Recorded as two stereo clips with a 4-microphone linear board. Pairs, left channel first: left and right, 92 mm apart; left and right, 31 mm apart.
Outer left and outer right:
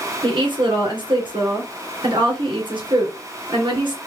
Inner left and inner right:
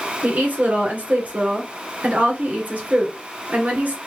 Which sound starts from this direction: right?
A woman speaking, at 0.2 s.